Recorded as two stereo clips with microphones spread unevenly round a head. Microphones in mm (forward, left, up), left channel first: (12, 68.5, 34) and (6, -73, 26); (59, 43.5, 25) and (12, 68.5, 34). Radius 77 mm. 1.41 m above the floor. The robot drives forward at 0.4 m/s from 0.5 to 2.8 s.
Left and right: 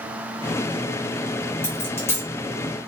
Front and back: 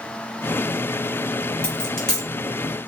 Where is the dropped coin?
40° left, 0.9 m; by 2.3 s 85° left, 0.9 m.